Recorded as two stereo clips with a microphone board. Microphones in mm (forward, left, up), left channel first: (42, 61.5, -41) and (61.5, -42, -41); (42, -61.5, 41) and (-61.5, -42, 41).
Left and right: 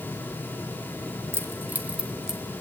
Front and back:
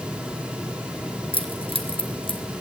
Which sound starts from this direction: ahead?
Keys jangling, at 1.3 s.